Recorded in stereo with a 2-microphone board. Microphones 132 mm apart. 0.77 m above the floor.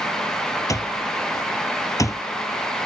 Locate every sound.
0.7 s an alarm clock: 25° left (ahead or behind)